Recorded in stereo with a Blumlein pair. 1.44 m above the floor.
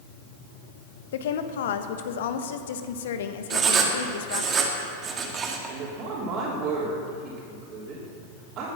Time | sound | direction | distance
1.1 | a woman speaking | 60° left | 1.3 m
3.5 | writing | 25° right | 2.5 m
5.7 | a woman speaking | 35° right | 3.5 m